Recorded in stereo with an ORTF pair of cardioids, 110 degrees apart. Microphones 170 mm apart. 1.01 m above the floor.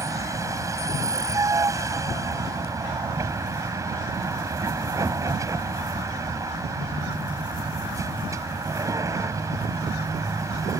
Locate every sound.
0.0 s a vehicle: 20° right